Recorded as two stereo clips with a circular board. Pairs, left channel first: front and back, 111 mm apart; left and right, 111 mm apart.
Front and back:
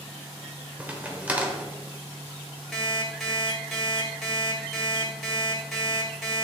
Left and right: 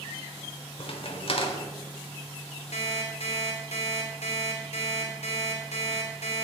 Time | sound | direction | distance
0.8 | a crack | 105° left | 1.2 m
2.7 | an alarm clock | 90° left | 2 m